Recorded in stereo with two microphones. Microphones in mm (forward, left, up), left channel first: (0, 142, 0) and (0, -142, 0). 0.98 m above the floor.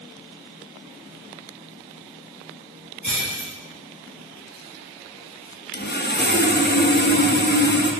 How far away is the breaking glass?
About 4.5 m.